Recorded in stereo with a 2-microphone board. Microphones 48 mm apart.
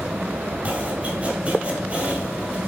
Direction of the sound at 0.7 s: 30° right (ahead or behind).